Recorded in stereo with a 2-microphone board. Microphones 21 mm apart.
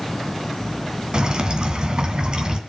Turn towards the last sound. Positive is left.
turn(degrees=-40)  # may be behind; listen again after turning